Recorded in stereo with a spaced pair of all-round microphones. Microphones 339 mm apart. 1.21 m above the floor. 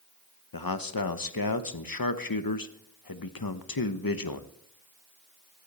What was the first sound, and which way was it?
A man speaking, 80° left.